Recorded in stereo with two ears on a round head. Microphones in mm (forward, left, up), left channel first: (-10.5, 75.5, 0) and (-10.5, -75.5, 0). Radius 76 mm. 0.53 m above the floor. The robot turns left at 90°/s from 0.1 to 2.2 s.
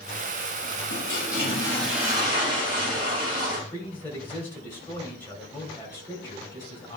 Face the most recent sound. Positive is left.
turn(degrees=15)  # may be behind; listen again after turning